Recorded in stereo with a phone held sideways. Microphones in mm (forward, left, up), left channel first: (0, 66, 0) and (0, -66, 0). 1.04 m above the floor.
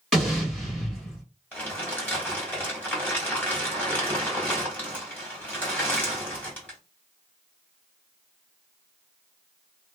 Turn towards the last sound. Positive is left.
turn(degrees=10)  # may be behind; listen again after turning